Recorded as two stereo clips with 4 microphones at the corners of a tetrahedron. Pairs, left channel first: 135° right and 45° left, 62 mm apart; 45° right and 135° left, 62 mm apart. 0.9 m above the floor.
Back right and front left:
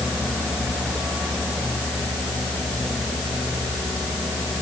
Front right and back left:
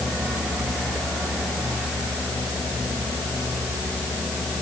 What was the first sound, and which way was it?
Only background noise.